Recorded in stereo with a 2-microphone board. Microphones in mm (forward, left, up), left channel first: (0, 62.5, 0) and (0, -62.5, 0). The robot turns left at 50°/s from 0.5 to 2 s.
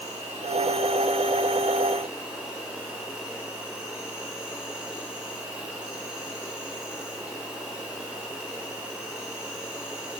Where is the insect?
95° right, 1.4 m; by 10.2 s 170° right, 1.4 m.